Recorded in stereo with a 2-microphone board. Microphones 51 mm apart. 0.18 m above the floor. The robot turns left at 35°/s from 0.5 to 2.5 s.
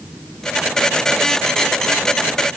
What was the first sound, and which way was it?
Only background noise.